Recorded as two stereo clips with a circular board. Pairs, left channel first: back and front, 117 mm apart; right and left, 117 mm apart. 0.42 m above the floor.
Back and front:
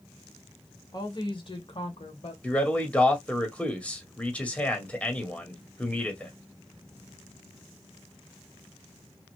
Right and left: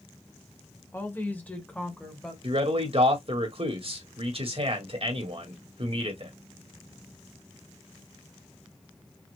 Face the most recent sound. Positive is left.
turn(degrees=105)